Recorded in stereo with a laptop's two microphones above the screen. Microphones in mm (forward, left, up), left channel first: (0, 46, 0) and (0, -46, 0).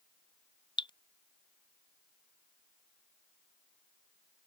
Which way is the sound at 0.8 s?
55° left (ahead or behind).